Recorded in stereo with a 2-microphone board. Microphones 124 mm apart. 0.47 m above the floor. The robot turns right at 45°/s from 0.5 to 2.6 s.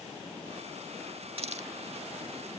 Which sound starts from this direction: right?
A hiss, at 1.4 s.